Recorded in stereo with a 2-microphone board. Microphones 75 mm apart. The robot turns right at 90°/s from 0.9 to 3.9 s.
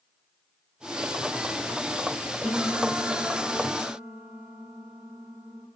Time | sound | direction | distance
2.4 | a piano | 170° right | 1.8 m